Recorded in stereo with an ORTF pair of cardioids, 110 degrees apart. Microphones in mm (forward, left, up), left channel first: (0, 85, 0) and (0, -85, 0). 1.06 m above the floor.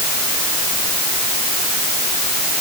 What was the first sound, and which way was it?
Only background noise.